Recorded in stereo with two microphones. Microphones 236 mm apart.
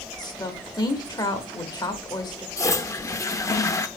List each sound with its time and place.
0.2 s a woman speaking: 15° left (ahead or behind), 1.1 m
2.6 s a toilet flushing: 15° left (ahead or behind), 0.5 m